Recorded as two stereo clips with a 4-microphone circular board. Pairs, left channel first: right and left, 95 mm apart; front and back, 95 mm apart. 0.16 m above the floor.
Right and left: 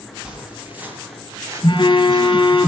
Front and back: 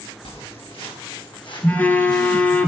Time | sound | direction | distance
0.2 | footsteps | 10° left | 4.5 m
1.6 | a phone buzzing | 65° right | 1.4 m